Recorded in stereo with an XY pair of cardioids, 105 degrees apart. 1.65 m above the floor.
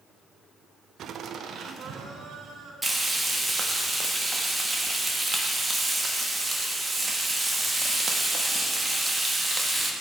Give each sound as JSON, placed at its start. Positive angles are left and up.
{"t": 1.0, "sound": "laughter", "azimuth_deg": -65, "distance_m": 0.6}
{"t": 2.8, "sound": "frying", "azimuth_deg": -15, "distance_m": 2.0}